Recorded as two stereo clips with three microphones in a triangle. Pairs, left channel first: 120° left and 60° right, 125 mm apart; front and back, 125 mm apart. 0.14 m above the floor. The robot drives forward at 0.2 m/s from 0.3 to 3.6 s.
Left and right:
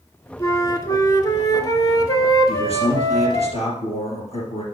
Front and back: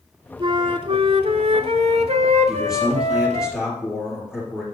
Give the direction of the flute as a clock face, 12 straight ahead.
6 o'clock.